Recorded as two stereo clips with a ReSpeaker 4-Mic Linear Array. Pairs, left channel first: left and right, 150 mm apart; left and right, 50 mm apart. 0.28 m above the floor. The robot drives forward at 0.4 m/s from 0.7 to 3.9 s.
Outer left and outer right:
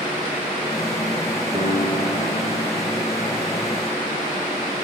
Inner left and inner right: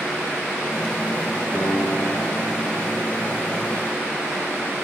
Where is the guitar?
45° right (ahead or behind), 1.9 m; by 3.0 s 60° right (ahead or behind), 1.6 m.